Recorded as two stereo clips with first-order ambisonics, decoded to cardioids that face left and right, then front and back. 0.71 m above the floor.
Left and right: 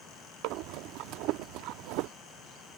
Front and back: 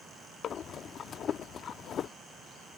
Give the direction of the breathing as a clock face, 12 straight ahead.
2 o'clock.